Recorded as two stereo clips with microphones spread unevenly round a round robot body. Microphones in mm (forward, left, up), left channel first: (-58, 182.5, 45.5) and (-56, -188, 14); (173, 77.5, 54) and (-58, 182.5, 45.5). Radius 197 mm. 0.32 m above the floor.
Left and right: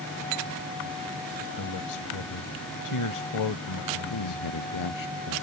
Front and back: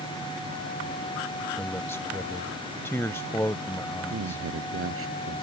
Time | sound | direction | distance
1.6 | a man speaking | 55° left | ?
4.1 | a man speaking | 125° left | ?